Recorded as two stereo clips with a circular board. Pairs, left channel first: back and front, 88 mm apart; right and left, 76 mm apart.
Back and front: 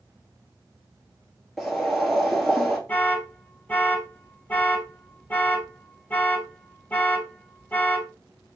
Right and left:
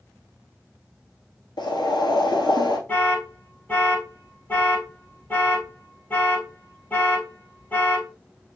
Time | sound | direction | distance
1.6 | boiling | 95° right | 1.0 m
2.9 | an alarm | 130° right | 0.9 m